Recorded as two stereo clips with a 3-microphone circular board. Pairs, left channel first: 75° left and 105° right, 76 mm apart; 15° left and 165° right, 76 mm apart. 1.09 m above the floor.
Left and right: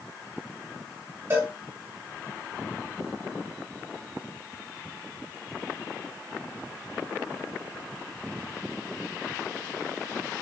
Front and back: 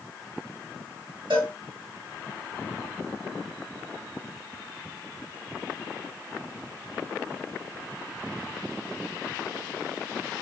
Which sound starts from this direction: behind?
A cowbell, at 1.3 s.